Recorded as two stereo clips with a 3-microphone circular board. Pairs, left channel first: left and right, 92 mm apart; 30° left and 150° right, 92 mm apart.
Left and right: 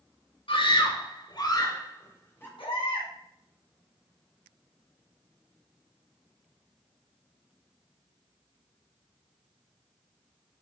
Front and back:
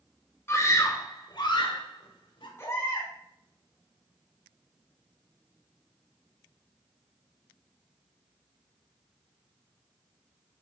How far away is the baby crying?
About 4 m.